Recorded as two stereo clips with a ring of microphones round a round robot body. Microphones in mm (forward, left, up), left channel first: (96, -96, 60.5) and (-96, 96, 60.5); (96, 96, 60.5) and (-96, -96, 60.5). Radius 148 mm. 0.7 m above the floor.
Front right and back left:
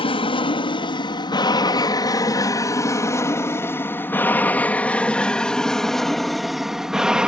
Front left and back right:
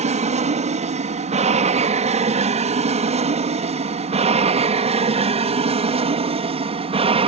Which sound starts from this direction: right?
An aircraft, at 0.0 s.